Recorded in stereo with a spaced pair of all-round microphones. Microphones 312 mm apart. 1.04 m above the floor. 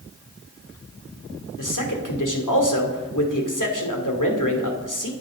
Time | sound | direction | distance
1.6 | a man speaking | 85° left | 2.5 m